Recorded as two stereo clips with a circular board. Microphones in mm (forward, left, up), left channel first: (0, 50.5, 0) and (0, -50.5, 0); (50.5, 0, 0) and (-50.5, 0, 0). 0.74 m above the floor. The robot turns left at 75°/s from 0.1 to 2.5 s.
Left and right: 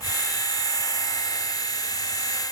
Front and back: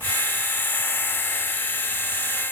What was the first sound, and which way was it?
Only background noise.